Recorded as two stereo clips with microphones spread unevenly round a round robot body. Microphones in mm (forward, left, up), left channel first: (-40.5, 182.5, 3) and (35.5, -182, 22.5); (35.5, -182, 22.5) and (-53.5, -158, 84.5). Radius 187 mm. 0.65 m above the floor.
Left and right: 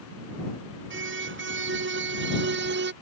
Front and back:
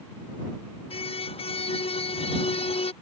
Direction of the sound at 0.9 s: 20° right.